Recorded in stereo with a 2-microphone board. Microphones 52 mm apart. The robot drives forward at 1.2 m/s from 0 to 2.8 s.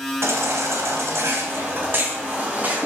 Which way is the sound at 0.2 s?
70° right (ahead or behind).